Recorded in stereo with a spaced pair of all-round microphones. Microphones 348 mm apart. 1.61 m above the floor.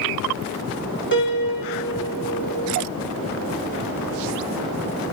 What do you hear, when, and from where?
1.1 s a piano: 30° left (ahead or behind), 2.5 m